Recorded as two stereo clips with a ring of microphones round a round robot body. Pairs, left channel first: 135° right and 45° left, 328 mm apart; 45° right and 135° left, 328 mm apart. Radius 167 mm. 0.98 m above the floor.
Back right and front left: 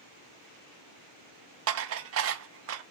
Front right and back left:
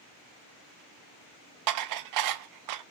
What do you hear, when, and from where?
1.7 s dishes clattering: 95° left, 0.5 m